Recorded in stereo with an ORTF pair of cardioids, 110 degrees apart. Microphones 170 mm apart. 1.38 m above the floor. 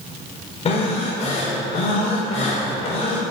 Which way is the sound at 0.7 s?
40° left.